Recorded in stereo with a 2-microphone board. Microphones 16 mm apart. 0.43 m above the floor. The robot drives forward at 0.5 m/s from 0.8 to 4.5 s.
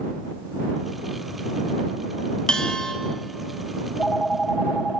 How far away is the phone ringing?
About 2 m.